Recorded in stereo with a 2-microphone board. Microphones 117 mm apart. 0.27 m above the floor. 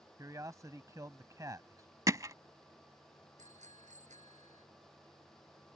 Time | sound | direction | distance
0.2 | a man speaking | 30° right (ahead or behind) | ?
2.1 | hammering | 30° right (ahead or behind) | ?
3.4 | a bicycle bell | 85° right | ?